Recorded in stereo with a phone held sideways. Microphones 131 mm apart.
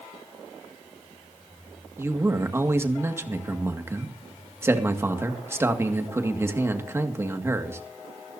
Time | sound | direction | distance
2.0 | a man speaking | 20° right (ahead or behind) | 2 m